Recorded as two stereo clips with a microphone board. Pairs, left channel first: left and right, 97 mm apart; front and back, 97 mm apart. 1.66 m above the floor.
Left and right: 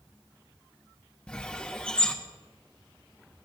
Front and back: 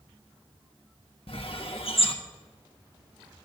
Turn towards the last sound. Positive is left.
turn(degrees=10)